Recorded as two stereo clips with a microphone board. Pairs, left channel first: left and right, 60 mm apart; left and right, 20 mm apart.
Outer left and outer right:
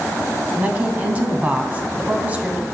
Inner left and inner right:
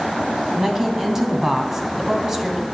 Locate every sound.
0.6 s a woman speaking: 25° right (ahead or behind), 1.4 m